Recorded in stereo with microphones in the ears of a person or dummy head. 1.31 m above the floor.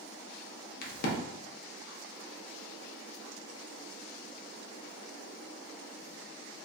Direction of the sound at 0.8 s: 50° left (ahead or behind).